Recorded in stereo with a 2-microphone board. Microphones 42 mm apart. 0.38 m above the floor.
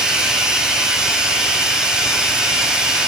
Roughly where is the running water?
Centre.